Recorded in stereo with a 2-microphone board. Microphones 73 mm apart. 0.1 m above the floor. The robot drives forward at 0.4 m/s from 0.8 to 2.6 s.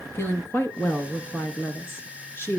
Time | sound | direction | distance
0.1 | a woman speaking | 30° left (ahead or behind) | 1.3 m